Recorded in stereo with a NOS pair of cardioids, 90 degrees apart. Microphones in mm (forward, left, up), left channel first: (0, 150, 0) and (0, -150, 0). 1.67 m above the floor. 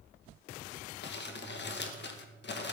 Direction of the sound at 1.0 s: 35° left.